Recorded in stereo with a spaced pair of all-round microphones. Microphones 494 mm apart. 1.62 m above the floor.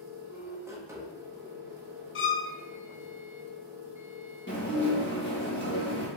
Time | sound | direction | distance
0.0 | a machine running | 5° right (ahead or behind) | 0.8 m
2.1 | a violin | 75° left (ahead or behind) | 0.6 m
4.5 | dishes clattering | 20° left (ahead or behind) | 1.2 m